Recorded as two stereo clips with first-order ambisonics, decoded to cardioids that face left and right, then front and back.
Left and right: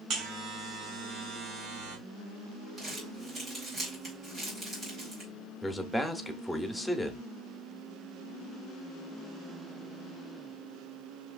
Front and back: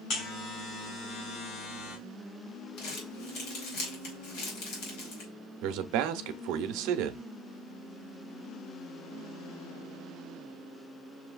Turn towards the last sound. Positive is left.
turn(degrees=175)